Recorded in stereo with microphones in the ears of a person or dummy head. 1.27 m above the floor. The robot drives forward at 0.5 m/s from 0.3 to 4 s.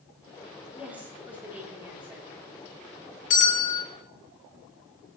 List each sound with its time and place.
0.7 s a woman speaking: 5° right (ahead or behind), 3 m
3.3 s a bell: 80° left, 2.5 m; by 3.9 s 75° left (ahead or behind), 2.5 m